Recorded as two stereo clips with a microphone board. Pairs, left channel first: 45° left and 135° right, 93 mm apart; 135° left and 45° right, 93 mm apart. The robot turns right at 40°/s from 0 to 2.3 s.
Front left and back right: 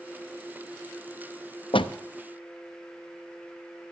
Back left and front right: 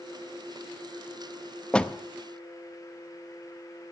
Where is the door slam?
55° left, 0.5 m; by 1.9 s 65° left, 0.5 m.